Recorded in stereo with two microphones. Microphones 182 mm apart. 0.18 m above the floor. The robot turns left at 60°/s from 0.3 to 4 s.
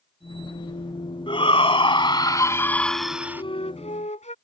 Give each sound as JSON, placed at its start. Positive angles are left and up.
{"t": 1.3, "sound": "a shout", "azimuth_deg": 105}
{"t": 3.4, "sound": "a flute", "azimuth_deg": 135}